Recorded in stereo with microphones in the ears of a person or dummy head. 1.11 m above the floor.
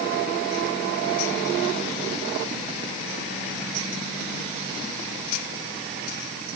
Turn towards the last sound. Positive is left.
No sound to turn to.